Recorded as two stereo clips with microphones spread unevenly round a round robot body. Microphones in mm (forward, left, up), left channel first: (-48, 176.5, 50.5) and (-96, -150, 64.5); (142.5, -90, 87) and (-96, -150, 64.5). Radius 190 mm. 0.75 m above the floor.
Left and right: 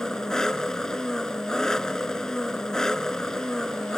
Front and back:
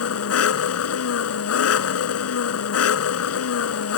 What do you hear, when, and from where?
0.0 s an engine running: 5° right